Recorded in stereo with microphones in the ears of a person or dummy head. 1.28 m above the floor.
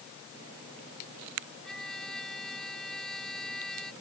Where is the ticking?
I don't hear ticking.